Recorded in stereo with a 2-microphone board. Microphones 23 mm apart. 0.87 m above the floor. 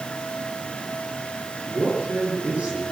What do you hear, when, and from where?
1.7 s a man speaking: 80° right, 9 m